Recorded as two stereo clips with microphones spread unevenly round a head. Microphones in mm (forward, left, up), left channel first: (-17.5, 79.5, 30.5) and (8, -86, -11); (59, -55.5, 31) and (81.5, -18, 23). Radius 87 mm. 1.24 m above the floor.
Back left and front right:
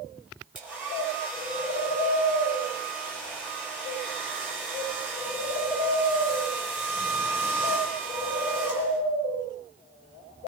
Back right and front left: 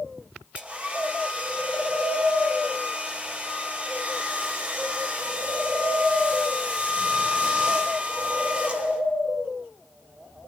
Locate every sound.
0.6 s a hair dryer: straight ahead, 4.5 m